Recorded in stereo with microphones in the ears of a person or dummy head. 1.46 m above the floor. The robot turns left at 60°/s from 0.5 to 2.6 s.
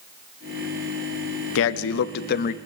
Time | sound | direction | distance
1.6 | a man speaking | 110° left | 0.6 m